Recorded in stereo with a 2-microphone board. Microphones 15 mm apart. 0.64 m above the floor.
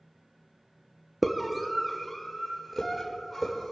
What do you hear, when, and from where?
1.2 s a scream: 10° right (ahead or behind), 0.9 m; by 3.7 s centre (ahead or behind), 2.5 m